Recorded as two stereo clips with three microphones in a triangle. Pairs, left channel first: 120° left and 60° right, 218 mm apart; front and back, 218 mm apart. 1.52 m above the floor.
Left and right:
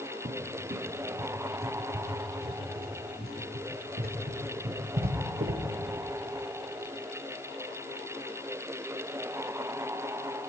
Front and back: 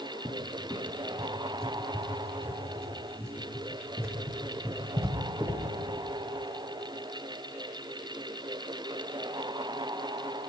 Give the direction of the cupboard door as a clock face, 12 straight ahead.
3 o'clock.